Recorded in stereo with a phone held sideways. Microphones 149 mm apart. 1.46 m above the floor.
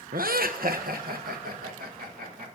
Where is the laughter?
75° right (ahead or behind), 0.7 m; by 2.5 s 80° right, 2.5 m.